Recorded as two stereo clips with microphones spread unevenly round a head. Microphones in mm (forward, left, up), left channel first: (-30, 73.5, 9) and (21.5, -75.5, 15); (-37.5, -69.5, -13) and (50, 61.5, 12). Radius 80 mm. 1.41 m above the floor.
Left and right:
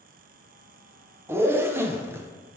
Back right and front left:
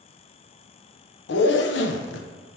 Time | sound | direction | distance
1.3 | a zipper | 145° right | 0.5 m